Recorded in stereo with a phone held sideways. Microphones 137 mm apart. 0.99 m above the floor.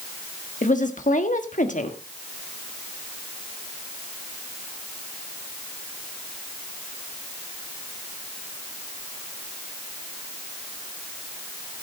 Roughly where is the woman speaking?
Left.